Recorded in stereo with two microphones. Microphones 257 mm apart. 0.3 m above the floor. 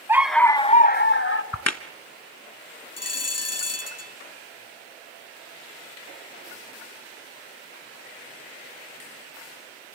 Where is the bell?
70° left (ahead or behind), 0.7 m.